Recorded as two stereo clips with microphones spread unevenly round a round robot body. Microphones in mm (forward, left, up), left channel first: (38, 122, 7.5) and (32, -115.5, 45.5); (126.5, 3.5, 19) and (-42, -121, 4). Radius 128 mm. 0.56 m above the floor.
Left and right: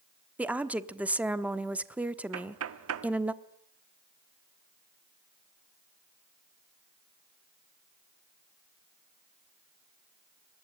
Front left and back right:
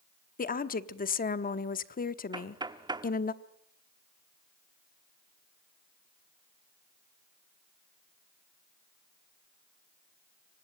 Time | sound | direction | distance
0.4 | a woman speaking | straight ahead | 1.1 m
2.3 | knocking | 80° right | 1.1 m